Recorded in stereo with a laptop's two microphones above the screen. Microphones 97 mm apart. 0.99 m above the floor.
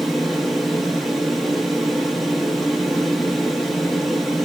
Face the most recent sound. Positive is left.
turn(degrees=0)  # may be behind; listen again after turning